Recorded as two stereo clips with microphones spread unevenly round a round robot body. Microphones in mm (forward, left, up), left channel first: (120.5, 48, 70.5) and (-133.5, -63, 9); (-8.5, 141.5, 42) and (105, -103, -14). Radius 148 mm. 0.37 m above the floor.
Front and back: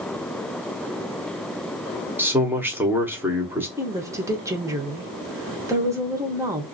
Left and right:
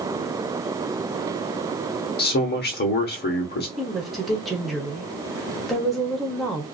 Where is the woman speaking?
130° right, 0.9 m.